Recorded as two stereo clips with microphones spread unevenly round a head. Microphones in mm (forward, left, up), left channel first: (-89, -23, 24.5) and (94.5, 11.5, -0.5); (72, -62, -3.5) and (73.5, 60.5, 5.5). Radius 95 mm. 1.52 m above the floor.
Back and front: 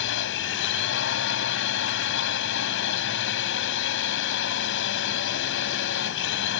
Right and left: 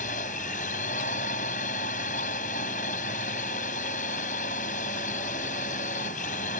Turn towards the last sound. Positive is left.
turn(degrees=-145)